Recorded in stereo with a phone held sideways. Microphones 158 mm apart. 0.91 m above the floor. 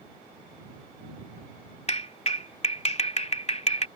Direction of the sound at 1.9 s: 45° left (ahead or behind).